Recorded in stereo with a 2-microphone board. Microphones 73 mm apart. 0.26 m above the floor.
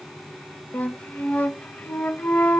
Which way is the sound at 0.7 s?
25° left (ahead or behind).